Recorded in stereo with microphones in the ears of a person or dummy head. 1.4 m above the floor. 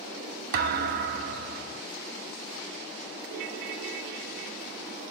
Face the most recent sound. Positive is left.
turn(degrees=-50)  # may be behind; listen again after turning